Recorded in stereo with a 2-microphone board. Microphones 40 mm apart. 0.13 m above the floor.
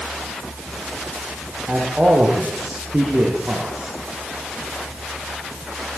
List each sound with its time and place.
1.7 s a man speaking: 35° right (ahead or behind), 9 m